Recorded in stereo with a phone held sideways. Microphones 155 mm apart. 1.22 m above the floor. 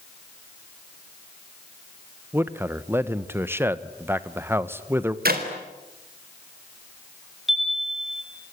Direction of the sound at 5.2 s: 75° right (ahead or behind).